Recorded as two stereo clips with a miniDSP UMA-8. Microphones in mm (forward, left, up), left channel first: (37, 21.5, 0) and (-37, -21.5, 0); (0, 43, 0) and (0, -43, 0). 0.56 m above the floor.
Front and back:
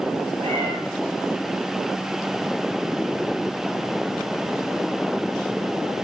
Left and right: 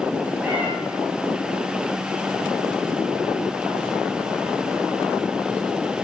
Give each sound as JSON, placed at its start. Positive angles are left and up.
{"t": 0.4, "sound": "a cat meowing", "azimuth_deg": -165, "distance_m": 6.0}